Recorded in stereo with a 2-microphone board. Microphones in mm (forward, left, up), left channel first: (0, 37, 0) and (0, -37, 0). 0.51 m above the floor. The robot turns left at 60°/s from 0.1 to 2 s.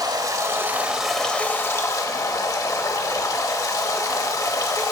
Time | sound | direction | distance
0.0 | running water | 120° right | 1.1 m